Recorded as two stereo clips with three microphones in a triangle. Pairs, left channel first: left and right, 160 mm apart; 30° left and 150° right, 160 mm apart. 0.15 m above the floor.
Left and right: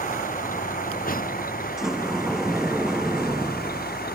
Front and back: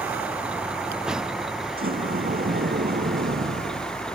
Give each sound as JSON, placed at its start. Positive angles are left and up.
{"t": 0.0, "sound": "a vehicle", "azimuth_deg": 130}
{"t": 1.8, "sound": "a sliding door", "azimuth_deg": -175}